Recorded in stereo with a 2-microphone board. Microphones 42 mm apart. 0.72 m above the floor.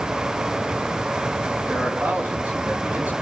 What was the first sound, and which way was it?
A man speaking, 50° right (ahead or behind).